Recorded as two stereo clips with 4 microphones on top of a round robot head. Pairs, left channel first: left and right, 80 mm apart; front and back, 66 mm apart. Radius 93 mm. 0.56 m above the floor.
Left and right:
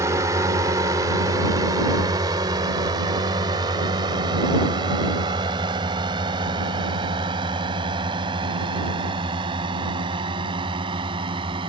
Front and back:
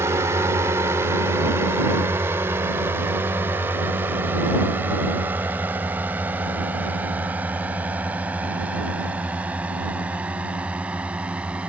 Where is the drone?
135° right; by 11.7 s 105° right.